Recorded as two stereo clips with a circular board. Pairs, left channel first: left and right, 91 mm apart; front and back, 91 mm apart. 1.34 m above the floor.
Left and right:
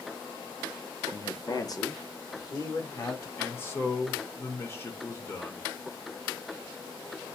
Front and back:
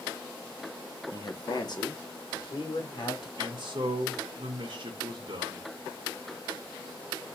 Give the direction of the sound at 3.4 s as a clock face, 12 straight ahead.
7 o'clock.